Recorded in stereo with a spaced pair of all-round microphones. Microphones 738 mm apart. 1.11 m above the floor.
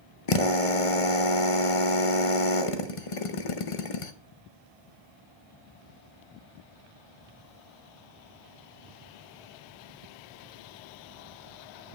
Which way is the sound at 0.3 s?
45° left (ahead or behind).